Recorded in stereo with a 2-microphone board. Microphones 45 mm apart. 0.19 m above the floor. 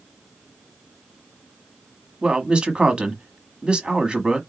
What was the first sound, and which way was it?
A man speaking, 25° right (ahead or behind).